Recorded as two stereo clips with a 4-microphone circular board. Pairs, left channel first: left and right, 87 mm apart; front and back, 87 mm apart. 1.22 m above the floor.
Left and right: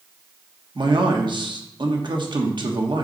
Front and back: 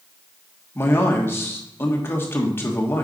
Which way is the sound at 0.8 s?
65° right.